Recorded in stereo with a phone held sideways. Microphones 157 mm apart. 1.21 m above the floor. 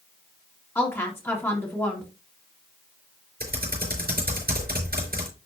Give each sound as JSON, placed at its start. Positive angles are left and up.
{"t": 0.8, "sound": "a woman speaking", "side_deg": 15, "distance_m": 2.0}
{"t": 3.4, "sound": "typing on a keyboard", "side_deg": -80, "distance_m": 4.5}